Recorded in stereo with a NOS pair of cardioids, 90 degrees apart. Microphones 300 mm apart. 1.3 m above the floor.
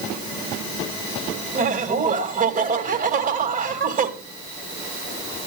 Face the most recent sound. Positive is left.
turn(degrees=-30)